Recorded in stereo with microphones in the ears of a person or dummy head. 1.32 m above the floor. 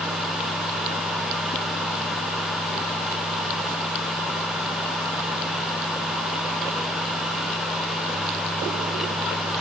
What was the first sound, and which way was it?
Only background noise.